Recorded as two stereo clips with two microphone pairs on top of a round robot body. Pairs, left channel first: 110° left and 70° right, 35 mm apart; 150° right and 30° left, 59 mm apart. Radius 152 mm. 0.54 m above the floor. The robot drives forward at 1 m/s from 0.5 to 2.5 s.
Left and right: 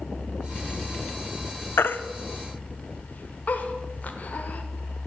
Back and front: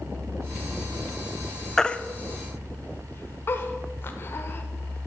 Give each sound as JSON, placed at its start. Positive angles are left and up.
{"t": 1.8, "sound": "a baby crying", "azimuth_deg": 125, "distance_m": 0.5}